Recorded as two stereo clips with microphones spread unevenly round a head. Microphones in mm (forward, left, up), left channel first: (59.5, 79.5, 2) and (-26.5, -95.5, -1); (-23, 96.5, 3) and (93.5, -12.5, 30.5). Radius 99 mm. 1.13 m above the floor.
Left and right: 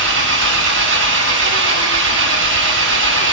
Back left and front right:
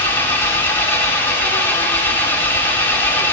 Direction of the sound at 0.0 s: 140° right.